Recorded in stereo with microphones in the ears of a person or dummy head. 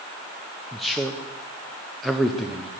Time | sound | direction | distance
0.7 | a man speaking | 5° right (ahead or behind) | 0.7 m